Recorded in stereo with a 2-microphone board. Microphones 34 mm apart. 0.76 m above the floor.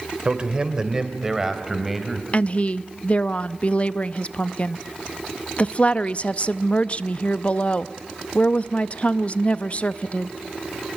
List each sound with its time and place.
0.2 s a man speaking: 30° right (ahead or behind), 2.5 m; by 2.2 s centre (ahead or behind), 3.5 m
2.3 s a woman speaking: 40° left (ahead or behind), 0.5 m